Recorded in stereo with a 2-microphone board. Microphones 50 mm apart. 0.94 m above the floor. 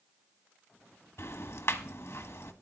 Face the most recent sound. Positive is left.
turn(degrees=55)  # may be behind; listen again after turning